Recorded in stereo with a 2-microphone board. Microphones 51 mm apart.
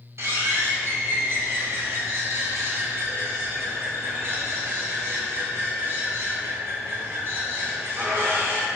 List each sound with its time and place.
0.2 s a bird: 60° right (ahead or behind), 1.8 m